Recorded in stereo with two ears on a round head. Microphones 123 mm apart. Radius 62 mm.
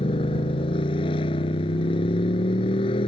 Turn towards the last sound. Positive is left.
turn(degrees=35)  # may be behind; listen again after turning